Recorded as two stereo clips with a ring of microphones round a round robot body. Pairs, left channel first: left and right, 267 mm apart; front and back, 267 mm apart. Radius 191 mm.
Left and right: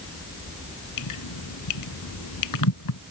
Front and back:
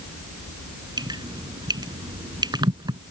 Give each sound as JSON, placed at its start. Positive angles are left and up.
{"t": 1.0, "sound": "dripping", "azimuth_deg": 105}